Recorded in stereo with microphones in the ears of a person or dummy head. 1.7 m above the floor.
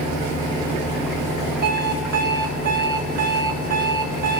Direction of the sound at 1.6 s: 50° right (ahead or behind).